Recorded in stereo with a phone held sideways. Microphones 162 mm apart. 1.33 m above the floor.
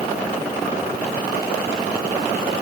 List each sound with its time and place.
Only background noise.